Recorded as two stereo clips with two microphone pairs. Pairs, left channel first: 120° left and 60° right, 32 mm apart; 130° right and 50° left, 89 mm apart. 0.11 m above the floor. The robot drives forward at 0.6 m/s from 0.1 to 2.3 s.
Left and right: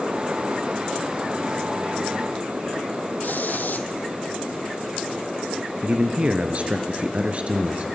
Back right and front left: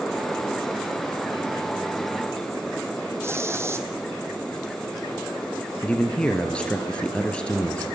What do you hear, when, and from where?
3.2 s a hiss: 105° left, 1.3 m
5.8 s a man speaking: 60° right, 1.6 m